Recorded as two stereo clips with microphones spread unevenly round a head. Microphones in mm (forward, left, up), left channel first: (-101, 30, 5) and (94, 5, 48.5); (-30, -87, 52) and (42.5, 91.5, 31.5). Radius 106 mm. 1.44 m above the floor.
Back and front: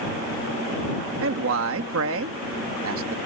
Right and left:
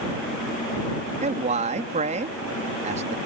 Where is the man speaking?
10° left.